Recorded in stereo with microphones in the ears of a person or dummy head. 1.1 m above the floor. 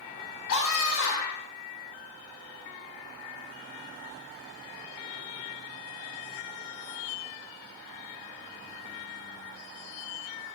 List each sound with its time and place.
0.5 s a scream: 85° left, 3.5 m